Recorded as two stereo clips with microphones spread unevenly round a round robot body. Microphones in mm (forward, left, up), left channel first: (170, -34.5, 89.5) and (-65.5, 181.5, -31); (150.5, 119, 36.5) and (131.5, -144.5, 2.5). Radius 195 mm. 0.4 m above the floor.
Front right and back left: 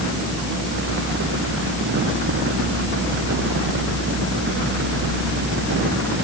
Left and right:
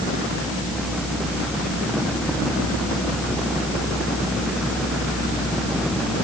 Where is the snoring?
No snoring in this recording.